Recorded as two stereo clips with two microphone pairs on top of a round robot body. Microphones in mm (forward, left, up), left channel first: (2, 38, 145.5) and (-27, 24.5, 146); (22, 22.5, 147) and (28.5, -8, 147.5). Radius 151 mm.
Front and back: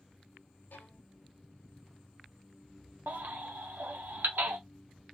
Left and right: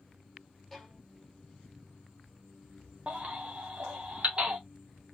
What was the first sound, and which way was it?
A violin, 20° left.